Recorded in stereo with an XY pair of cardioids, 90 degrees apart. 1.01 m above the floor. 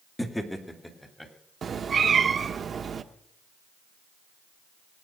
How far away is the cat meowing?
About 1.1 m.